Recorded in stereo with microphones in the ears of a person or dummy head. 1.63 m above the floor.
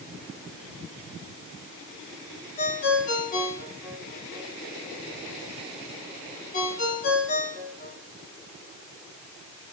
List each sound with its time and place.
2.6 s a ringtone: 45° left (ahead or behind), 3 m